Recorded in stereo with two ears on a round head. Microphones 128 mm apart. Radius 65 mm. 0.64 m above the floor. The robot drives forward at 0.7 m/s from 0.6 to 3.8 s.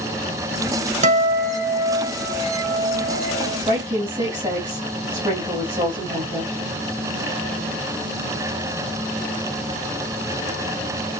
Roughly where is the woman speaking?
Right.